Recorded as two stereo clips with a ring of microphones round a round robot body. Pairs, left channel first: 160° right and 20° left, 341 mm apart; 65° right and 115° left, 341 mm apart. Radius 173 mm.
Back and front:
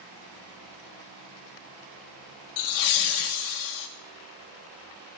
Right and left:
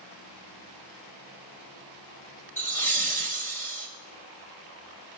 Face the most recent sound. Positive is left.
turn(degrees=-150)